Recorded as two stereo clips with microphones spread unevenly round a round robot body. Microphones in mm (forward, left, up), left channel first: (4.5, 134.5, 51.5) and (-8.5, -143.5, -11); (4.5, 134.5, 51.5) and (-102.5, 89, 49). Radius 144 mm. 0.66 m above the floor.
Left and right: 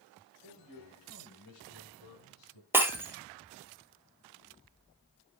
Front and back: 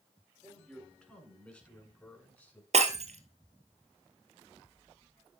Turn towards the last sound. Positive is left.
turn(degrees=180)